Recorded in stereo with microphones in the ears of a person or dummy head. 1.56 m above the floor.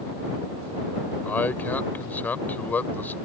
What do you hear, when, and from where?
1.2 s a man speaking: 5° left (ahead or behind)